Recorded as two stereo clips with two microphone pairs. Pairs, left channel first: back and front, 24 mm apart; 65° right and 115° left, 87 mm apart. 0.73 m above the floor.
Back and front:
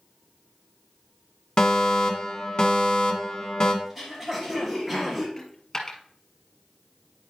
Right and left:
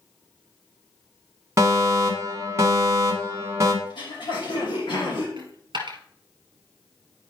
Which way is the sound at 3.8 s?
85° right.